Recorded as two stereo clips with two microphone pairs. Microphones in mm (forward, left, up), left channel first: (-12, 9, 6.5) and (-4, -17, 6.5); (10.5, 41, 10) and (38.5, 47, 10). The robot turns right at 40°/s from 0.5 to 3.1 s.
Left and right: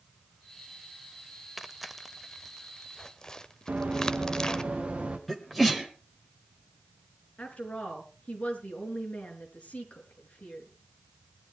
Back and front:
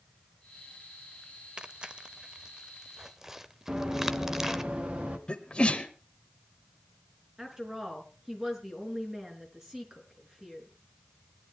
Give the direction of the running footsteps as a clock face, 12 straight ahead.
1 o'clock.